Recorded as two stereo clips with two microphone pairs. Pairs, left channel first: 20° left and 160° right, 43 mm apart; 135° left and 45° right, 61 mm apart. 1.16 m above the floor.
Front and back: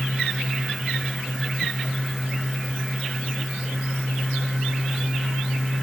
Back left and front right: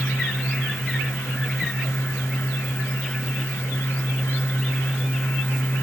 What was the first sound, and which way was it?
Only background noise.